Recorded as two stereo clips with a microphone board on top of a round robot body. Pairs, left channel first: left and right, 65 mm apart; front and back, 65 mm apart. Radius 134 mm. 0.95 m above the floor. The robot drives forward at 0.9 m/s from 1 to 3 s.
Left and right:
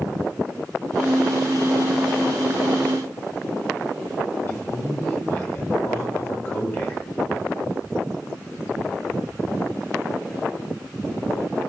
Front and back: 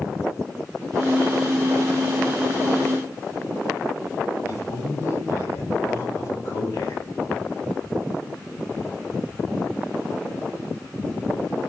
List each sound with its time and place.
4.5 s a man speaking: 45° left, 5 m